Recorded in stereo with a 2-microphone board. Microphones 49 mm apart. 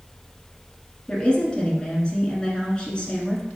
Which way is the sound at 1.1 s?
20° left (ahead or behind).